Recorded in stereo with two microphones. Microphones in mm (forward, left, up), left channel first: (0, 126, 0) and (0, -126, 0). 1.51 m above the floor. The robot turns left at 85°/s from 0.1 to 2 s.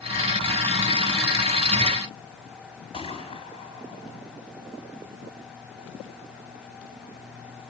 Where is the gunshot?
25° left (ahead or behind), 5 m.